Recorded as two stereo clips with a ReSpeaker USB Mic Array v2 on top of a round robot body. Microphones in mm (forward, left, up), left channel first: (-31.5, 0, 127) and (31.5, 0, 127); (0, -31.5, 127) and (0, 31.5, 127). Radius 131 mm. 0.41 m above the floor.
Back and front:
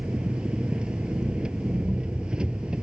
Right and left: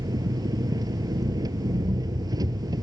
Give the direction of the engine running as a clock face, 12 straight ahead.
9 o'clock.